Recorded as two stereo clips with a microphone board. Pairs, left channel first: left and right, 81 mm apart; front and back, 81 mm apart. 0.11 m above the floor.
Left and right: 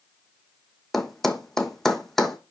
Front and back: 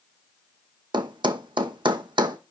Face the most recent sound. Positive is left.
turn(degrees=175)